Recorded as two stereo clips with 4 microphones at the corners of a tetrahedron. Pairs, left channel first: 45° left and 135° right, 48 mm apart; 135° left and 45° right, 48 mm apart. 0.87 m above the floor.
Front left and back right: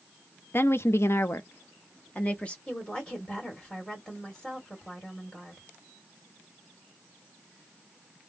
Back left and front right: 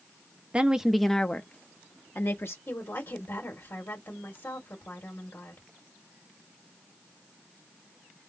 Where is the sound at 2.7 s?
110° left, 1.7 m.